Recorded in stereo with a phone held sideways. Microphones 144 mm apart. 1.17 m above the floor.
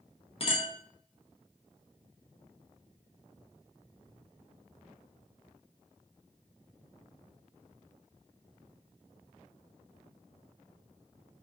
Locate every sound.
0.4 s a clink: 40° left (ahead or behind), 0.6 m